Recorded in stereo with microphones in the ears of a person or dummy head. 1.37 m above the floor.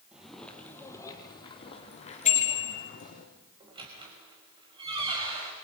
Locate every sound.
0.1 s footsteps: 5° right (ahead or behind), 2.5 m; by 3.2 s 50° left (ahead or behind), 5 m
2.2 s a bicycle bell: 45° left (ahead or behind), 4.5 m
3.6 s a squeak: 25° right (ahead or behind), 5 m